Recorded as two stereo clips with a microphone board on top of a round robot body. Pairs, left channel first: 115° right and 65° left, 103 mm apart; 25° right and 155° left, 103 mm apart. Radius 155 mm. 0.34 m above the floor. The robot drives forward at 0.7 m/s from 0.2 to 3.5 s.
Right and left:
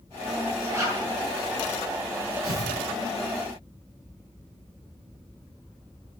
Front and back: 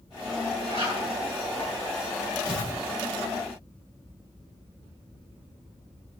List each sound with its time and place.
0.7 s a zipper: 130° left, 10 m
2.4 s tearing paper: 125° left, 9.5 m